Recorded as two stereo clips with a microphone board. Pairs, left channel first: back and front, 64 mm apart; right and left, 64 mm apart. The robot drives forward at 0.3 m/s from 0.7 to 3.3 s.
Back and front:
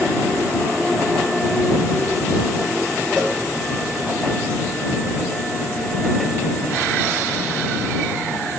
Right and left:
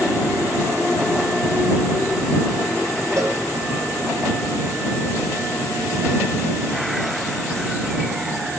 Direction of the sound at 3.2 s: 110° left.